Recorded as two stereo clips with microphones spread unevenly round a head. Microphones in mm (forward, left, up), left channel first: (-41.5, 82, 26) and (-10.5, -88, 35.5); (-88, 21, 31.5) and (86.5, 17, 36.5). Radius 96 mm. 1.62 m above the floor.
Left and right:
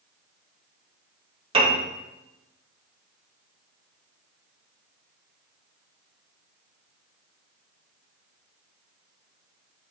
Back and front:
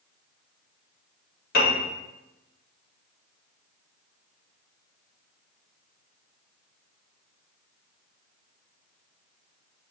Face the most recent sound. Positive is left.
turn(degrees=-140)